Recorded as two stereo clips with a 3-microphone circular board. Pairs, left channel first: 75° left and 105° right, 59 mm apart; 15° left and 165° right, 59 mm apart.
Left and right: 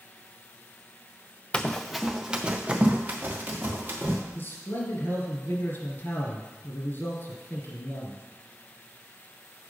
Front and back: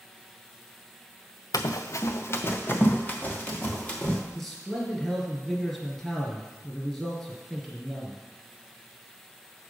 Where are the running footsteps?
5° left, 0.5 m; by 4.2 s 50° right, 2 m.